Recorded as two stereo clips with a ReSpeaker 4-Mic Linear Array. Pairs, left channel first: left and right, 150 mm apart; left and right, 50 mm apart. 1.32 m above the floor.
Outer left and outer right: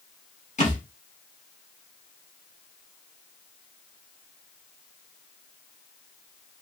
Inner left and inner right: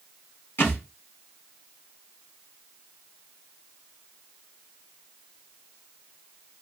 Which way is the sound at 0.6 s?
55° left (ahead or behind).